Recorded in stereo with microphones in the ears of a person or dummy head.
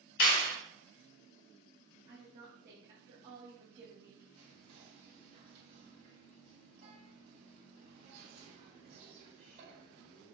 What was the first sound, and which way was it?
A clap, 55° left (ahead or behind).